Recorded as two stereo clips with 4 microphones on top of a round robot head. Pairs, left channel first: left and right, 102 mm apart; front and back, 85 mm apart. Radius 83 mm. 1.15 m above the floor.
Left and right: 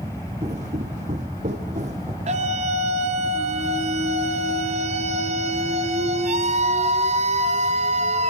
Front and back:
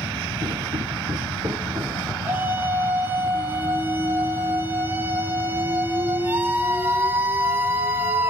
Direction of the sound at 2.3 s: 105° right.